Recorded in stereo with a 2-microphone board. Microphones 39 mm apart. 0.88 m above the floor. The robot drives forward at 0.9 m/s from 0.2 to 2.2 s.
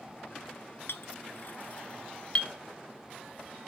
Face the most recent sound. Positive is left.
turn(degrees=30)  # may be behind; listen again after turning